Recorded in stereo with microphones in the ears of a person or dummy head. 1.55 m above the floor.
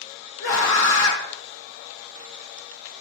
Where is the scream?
75° left (ahead or behind), 1.8 m.